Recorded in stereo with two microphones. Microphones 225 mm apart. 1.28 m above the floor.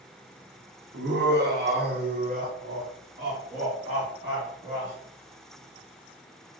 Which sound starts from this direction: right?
Laughter, at 0.9 s.